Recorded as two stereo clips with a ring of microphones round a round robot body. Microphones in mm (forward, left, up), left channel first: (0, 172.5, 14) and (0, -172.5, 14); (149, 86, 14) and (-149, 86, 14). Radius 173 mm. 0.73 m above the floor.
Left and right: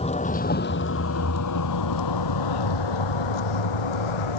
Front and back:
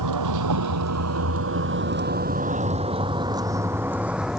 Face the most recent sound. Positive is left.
turn(degrees=90)